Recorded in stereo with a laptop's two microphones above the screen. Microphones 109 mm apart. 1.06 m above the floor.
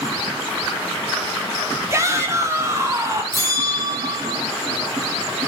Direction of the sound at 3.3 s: 30° right (ahead or behind).